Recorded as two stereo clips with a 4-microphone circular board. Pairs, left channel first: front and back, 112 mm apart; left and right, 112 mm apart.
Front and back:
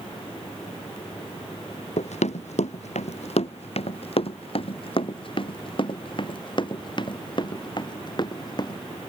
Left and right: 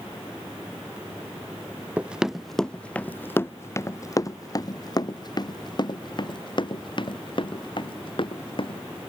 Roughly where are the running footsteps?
Ahead.